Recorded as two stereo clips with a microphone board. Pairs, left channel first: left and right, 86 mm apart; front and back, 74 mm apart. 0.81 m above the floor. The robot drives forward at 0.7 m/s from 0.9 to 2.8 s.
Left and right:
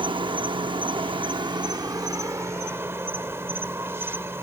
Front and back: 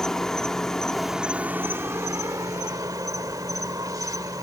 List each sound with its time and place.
0.0 s an insect: 80° right; by 4.4 s 150° right